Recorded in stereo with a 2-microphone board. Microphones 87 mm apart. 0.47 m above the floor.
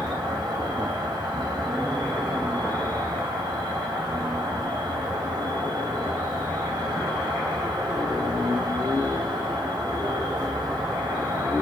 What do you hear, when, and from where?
0.0 s an insect: 60° right (ahead or behind), 0.9 m